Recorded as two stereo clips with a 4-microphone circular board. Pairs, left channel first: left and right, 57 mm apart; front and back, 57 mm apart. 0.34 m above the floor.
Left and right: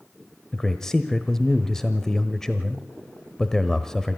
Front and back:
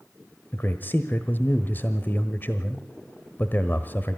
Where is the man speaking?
15° left, 1.1 m.